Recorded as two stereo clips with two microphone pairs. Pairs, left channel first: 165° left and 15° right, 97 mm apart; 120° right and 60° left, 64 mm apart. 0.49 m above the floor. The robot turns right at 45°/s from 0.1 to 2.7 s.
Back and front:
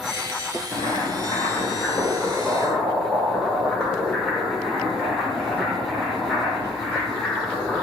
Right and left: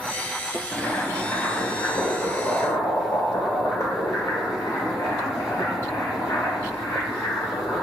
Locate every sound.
0.7 s boiling: 165° left, 1.2 m; by 7.8 s 110° right, 1.2 m